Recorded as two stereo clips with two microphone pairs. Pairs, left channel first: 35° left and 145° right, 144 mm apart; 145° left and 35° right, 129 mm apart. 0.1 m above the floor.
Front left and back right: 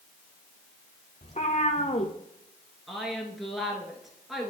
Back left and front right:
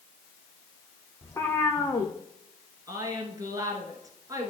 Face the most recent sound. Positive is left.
turn(degrees=-55)